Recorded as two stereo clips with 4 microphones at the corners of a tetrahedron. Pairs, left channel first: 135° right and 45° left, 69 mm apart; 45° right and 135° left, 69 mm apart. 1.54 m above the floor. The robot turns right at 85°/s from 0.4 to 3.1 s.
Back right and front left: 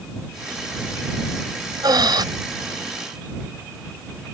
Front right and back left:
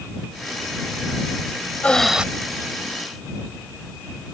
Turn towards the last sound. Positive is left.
turn(degrees=130)